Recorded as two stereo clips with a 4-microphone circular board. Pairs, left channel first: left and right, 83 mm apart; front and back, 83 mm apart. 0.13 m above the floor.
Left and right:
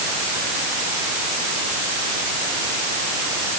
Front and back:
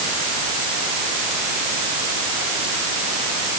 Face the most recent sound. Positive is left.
No sound to turn to.